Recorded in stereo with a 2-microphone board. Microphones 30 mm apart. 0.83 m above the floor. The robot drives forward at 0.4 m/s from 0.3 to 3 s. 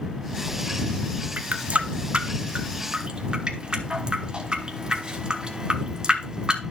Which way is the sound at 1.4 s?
60° right (ahead or behind).